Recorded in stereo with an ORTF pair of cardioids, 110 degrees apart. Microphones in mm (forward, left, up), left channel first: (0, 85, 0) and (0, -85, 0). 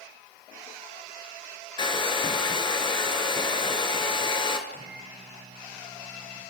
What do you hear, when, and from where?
1.8 s a hair dryer: 30° left, 3 m
4.7 s a microwave: 35° right, 7 m